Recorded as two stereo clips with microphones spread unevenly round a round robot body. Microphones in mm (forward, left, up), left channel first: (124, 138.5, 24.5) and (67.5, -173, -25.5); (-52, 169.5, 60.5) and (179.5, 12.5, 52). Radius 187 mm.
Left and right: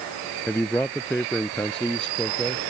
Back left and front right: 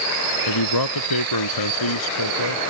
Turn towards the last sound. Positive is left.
turn(degrees=165)